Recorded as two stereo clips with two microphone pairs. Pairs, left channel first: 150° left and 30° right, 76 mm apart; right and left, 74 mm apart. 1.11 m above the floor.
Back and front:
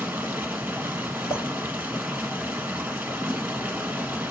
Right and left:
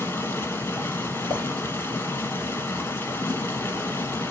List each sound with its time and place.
0.0 s running water: 75° right, 1.1 m
1.3 s a clink: 120° left, 2.5 m